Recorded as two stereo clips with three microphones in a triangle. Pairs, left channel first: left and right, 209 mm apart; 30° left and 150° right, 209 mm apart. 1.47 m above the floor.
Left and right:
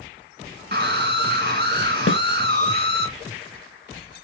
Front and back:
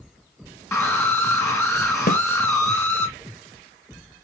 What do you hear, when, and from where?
0.7 s a scream: 50° right, 2.5 m
2.1 s a snare drum: 75° left, 0.6 m